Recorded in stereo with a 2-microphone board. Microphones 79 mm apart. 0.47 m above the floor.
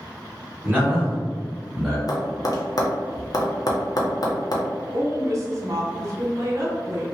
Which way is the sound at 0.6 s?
25° right (ahead or behind).